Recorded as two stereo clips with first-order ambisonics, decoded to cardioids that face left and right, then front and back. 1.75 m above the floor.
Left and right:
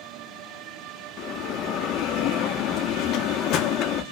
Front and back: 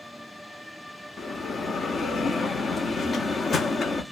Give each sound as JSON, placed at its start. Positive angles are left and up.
{"t": 1.2, "sound": "a bell", "azimuth_deg": 65, "distance_m": 0.6}